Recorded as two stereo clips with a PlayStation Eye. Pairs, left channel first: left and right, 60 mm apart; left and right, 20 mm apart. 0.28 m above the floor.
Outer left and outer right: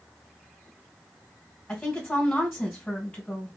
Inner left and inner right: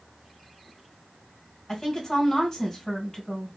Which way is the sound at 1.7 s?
10° left (ahead or behind).